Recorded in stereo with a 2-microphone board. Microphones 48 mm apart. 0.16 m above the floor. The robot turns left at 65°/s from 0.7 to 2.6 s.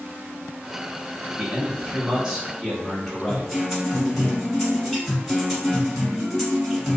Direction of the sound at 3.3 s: Centre (ahead or behind).